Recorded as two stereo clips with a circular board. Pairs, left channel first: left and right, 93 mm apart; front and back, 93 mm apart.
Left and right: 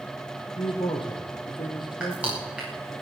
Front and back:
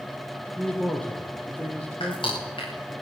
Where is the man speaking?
75° left, 3.5 m.